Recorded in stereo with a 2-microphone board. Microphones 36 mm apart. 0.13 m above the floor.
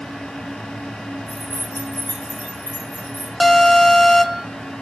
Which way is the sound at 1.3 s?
65° left (ahead or behind).